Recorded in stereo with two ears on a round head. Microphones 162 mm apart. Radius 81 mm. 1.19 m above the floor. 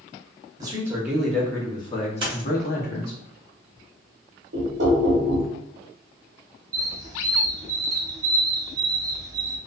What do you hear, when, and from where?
0.6 s a man speaking: 20° right (ahead or behind), 0.9 m; by 3.2 s 60° left (ahead or behind), 1.2 m
2.2 s a dropped coin: 30° right (ahead or behind), 1.0 m
4.5 s knocking: 70° right (ahead or behind), 1.0 m
6.7 s a squeak: 20° right (ahead or behind), 0.5 m